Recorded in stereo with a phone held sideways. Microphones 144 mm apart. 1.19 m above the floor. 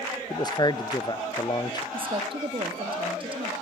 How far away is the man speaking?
About 0.6 m.